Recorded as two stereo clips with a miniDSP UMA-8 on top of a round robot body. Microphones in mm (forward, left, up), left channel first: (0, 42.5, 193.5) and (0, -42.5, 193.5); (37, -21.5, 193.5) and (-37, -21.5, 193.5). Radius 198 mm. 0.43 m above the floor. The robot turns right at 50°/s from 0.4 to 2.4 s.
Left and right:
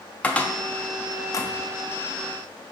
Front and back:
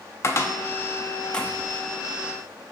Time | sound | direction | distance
0.2 | a cupboard door | 25° left | 0.7 m